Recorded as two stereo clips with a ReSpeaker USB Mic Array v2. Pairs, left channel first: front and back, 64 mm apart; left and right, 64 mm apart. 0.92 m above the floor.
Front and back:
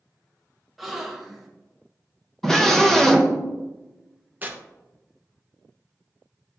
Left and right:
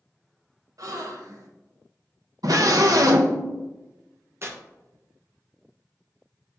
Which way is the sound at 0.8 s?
90° right.